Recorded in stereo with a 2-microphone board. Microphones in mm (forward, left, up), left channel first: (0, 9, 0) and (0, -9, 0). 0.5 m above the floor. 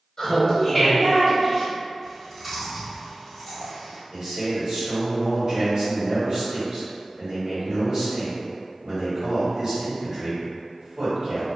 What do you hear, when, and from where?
0.2 s laughter: 35° left (ahead or behind), 1.3 m; by 1.7 s 30° right (ahead or behind), 1.8 m
2.0 s chewing: 5° right (ahead or behind), 1.8 m
4.1 s a man speaking: 55° right (ahead or behind), 1.6 m